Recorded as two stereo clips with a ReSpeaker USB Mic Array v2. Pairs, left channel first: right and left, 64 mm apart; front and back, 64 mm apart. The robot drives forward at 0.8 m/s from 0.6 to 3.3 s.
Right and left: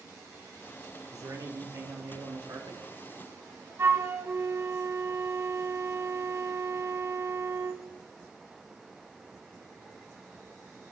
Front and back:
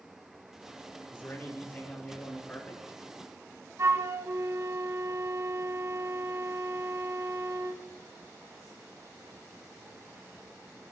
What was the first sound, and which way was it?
A man speaking, 55° left.